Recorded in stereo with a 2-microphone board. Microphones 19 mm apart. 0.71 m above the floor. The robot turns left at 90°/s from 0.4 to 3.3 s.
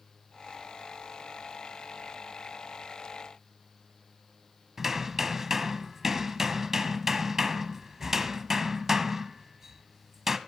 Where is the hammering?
20° right (ahead or behind), 1.1 m.